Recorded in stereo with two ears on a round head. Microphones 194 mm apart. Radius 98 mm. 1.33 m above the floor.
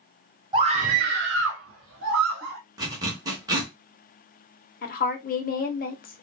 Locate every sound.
0.5 s a scream: 20° right (ahead or behind), 0.7 m; by 2.6 s 60° right (ahead or behind), 1.2 m
2.8 s a zipper: 20° right (ahead or behind), 0.8 m
4.8 s a woman speaking: 40° left (ahead or behind), 0.7 m